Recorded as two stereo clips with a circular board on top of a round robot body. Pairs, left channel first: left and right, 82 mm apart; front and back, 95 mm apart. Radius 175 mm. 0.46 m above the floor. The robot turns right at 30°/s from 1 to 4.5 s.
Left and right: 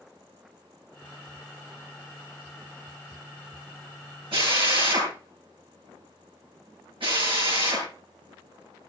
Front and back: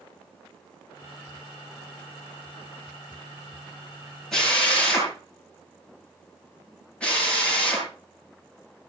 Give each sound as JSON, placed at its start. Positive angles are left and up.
{"t": 4.3, "sound": "a drill", "azimuth_deg": -85, "distance_m": 8.0}